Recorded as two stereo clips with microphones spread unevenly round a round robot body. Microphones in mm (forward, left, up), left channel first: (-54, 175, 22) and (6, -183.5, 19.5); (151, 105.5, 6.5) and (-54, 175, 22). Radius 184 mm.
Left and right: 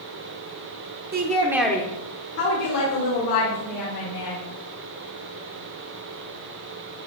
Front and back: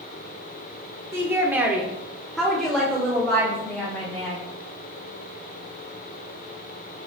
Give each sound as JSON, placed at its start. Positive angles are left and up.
{"t": 1.1, "sound": "a woman speaking", "azimuth_deg": -120, "distance_m": 1.4}